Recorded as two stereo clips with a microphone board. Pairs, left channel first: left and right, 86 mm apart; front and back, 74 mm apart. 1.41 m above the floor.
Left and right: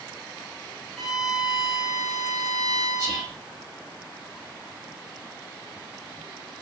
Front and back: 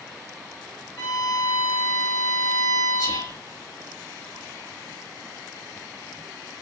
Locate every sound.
1.0 s a violin: straight ahead, 1.5 m
3.0 s whispering: 10° left, 3.5 m